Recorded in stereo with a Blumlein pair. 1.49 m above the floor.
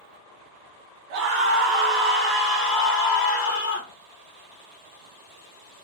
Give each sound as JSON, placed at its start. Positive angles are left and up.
{"t": 1.1, "sound": "a scream", "azimuth_deg": -45, "distance_m": 2.0}